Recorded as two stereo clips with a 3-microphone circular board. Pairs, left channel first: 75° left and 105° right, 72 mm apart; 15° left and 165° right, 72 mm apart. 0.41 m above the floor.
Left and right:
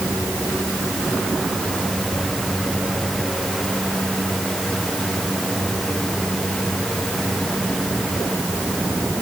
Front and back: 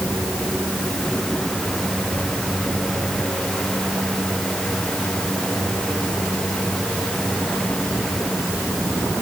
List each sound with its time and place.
Only background noise.